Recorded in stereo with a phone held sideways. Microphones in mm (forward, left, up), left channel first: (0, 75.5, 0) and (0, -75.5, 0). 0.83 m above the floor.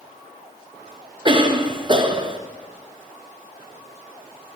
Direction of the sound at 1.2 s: 35° right (ahead or behind).